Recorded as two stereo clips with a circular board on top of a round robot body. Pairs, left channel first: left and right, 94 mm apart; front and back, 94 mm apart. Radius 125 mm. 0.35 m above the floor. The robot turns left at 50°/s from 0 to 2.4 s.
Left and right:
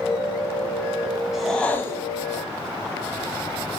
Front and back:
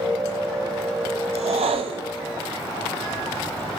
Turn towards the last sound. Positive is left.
turn(degrees=130)